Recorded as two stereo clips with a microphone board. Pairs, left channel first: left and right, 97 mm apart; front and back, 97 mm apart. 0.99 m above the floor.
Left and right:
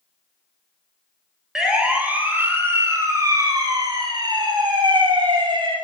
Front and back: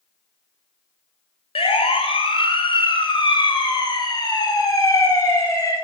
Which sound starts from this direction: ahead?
A siren, at 1.6 s.